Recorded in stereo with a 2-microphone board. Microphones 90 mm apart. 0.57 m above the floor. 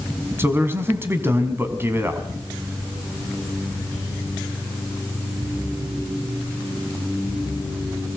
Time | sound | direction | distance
0.4 | a man speaking | 25° right (ahead or behind) | 4.5 m